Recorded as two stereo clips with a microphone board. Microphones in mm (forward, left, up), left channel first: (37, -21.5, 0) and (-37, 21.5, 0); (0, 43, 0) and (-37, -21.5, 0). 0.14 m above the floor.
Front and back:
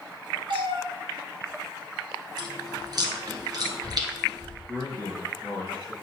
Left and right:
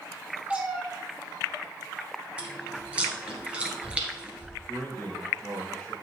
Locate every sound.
0.5 s a cat meowing: 165° left, 1.3 m
2.4 s chewing: 165° left, 1.5 m
4.7 s a man speaking: 140° left, 3 m